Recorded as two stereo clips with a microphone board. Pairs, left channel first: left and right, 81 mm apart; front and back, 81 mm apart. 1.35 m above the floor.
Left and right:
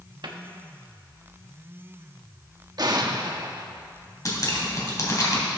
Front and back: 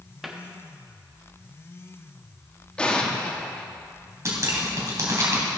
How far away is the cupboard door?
About 1.2 m.